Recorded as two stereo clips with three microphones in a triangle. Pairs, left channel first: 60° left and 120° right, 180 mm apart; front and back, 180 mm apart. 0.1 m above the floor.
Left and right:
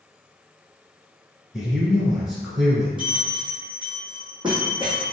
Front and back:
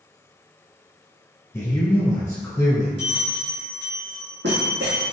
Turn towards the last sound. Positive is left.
turn(degrees=180)